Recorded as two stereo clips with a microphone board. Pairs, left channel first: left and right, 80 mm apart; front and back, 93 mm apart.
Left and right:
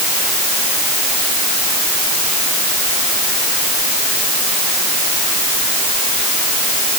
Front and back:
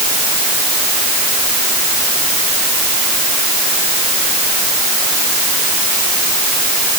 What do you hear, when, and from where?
Only background noise.